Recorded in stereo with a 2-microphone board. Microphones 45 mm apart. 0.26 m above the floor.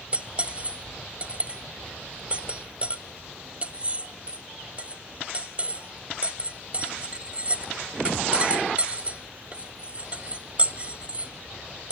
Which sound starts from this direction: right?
Cutlery clinking, at 0.1 s.